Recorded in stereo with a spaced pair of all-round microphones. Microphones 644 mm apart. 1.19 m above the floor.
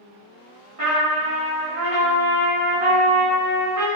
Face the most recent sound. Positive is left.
turn(degrees=-55)  # may be behind; listen again after turning